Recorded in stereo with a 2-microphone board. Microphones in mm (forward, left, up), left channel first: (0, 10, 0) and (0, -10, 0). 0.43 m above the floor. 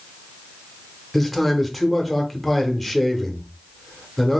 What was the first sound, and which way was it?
A man speaking, 5° left (ahead or behind).